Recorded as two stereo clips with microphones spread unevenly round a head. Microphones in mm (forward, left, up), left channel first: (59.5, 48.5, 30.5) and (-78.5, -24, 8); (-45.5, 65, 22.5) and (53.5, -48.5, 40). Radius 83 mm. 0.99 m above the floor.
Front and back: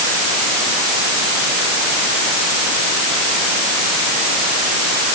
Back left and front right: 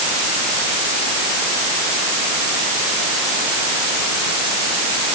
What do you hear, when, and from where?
Only background noise.